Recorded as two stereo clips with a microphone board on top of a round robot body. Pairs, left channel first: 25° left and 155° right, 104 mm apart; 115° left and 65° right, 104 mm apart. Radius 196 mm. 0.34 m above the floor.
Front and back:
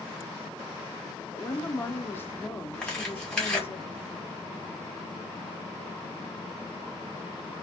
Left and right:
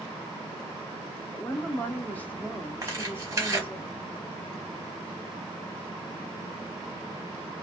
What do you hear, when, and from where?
1.3 s a woman speaking: 60° left, 0.9 m
2.8 s tearing paper: 50° right, 1.5 m